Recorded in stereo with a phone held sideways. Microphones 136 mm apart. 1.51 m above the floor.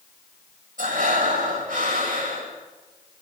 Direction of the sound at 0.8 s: 85° right.